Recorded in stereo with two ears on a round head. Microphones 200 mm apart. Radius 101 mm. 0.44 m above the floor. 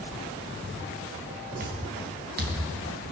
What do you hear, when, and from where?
1.6 s footsteps: 45° right (ahead or behind), 6.5 m